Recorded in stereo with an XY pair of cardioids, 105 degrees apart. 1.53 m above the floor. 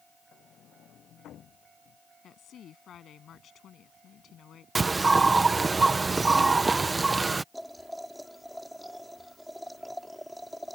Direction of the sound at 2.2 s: 60° left.